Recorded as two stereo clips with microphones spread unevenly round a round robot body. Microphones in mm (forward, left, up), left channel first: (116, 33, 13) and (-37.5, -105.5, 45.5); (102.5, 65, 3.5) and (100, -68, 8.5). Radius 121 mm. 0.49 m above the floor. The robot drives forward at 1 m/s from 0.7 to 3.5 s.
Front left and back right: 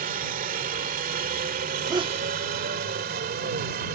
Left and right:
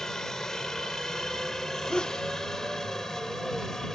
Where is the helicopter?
175° left.